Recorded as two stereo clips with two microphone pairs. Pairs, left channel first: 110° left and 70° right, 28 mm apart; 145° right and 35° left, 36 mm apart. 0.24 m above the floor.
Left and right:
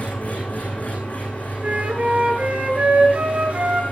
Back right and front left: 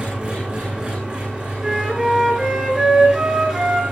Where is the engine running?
85° left, 10 m.